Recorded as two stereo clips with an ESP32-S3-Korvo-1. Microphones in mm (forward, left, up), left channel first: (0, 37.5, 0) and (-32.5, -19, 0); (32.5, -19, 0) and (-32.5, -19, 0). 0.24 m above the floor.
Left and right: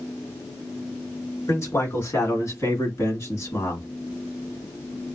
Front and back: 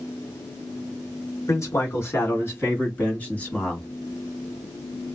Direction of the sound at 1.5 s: 25° left.